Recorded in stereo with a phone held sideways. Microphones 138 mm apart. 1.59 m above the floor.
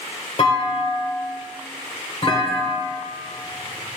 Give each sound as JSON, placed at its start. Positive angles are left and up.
{"t": 0.4, "sound": "a clunk", "side_deg": 40, "distance_m": 2.5}